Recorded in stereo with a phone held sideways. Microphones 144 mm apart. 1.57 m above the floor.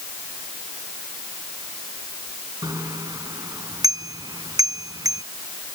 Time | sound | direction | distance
2.6 | a bicycle bell | 25° right (ahead or behind) | ?